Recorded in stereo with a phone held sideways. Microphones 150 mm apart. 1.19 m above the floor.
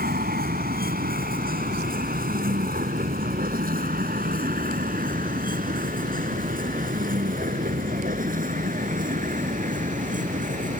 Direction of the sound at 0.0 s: 90° right.